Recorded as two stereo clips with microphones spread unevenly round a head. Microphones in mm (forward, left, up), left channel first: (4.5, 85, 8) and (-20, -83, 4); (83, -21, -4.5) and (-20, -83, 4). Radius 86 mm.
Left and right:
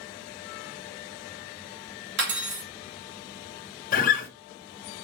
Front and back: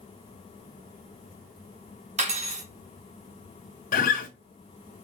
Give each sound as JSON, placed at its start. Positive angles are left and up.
{"t": 2.2, "sound": "cutlery clinking", "azimuth_deg": -120, "distance_m": 1.6}
{"t": 3.9, "sound": "a guitar", "azimuth_deg": 40, "distance_m": 0.7}